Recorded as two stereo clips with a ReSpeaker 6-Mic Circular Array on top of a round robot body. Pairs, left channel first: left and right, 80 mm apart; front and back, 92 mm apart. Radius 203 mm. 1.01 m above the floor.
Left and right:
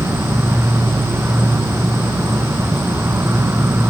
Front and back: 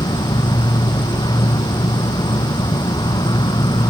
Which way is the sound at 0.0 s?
30° right.